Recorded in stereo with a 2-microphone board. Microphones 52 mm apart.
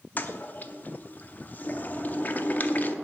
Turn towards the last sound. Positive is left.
turn(degrees=35)  # may be behind; listen again after turning